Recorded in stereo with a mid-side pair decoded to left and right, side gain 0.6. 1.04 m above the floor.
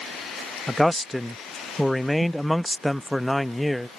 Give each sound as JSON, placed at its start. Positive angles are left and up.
{"t": 0.7, "sound": "a man speaking", "azimuth_deg": 5}